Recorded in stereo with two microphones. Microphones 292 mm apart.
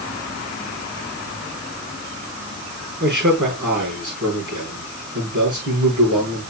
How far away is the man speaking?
About 6 m.